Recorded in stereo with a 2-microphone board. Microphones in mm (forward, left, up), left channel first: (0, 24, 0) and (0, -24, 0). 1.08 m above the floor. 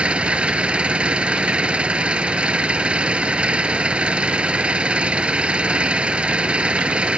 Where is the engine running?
25° right (ahead or behind).